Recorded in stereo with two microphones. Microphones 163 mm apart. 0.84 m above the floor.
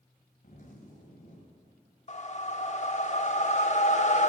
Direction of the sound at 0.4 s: 50° left (ahead or behind).